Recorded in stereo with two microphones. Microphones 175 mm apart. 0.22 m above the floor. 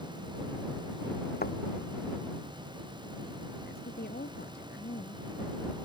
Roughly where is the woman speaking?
Left.